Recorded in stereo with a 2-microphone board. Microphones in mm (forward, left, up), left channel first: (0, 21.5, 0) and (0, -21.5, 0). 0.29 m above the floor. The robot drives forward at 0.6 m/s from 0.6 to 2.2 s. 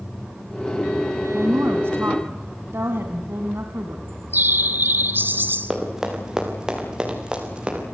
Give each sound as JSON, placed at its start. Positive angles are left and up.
{"t": 1.3, "sound": "a woman speaking", "side_deg": -60, "distance_m": 1.9}
{"t": 4.1, "sound": "a bird", "side_deg": -50, "distance_m": 1.0}
{"t": 5.7, "sound": "running footsteps", "side_deg": -15, "distance_m": 5.5}